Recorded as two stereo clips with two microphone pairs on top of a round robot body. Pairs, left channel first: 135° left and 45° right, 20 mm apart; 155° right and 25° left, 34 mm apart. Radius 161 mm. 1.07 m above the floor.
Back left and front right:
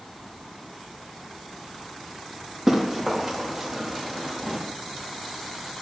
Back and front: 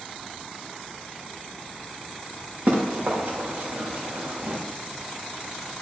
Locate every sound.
2.7 s running footsteps: 30° left, 4 m; by 4.6 s 45° left, 4 m